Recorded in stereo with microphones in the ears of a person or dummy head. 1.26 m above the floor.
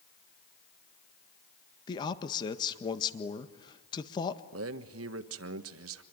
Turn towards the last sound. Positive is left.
turn(degrees=-75)  # may be behind; listen again after turning